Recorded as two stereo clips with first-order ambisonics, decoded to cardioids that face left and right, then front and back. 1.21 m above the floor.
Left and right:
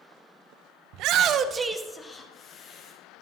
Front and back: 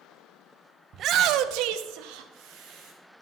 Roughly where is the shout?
Behind right.